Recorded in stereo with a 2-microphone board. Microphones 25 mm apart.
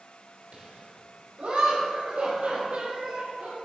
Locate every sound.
0.5 s laughter: 65° right (ahead or behind), 2 m; by 3.7 s 75° right (ahead or behind), 3.5 m